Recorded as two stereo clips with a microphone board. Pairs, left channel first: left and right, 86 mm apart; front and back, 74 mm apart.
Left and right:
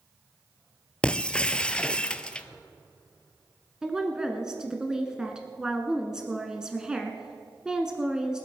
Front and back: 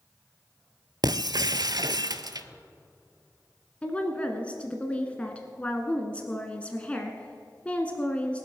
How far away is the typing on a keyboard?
I don't hear typing on a keyboard.